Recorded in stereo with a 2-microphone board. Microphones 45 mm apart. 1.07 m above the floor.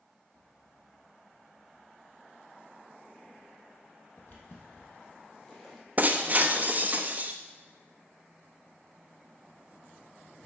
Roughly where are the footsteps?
Left.